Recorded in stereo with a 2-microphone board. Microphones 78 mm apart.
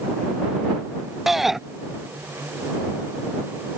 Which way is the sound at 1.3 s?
5° right (ahead or behind).